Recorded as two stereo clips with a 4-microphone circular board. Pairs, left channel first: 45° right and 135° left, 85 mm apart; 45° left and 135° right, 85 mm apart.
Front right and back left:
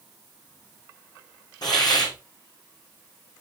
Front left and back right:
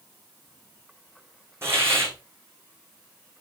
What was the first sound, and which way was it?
A hiss, 75° right.